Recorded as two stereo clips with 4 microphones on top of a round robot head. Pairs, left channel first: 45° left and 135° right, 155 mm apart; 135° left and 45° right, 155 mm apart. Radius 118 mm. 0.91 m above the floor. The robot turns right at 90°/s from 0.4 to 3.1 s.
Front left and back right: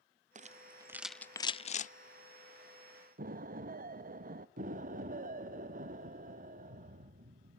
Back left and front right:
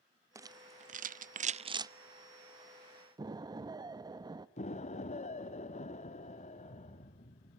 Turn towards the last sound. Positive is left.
turn(degrees=-175)